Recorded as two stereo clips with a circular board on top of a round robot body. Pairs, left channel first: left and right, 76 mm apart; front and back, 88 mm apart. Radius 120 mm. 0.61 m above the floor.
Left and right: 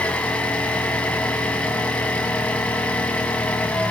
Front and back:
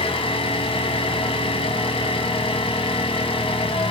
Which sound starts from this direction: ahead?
An engine running, at 0.0 s.